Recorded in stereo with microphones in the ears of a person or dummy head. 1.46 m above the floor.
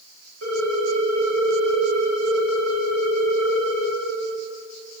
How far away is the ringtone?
About 2.5 m.